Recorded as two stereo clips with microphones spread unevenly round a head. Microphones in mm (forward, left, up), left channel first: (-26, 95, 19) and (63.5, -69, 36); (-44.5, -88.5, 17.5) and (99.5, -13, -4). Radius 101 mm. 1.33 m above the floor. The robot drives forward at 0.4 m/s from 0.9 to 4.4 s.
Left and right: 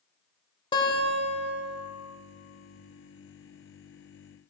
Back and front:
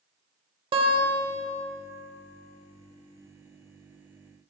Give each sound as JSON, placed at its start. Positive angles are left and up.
{"t": 0.7, "sound": "a guitar", "azimuth_deg": 65, "distance_m": 1.1}